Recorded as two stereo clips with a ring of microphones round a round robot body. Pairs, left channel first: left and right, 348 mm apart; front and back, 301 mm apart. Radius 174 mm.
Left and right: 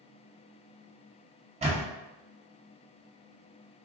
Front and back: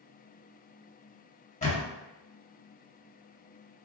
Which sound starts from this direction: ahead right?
A camera shutter, at 1.6 s.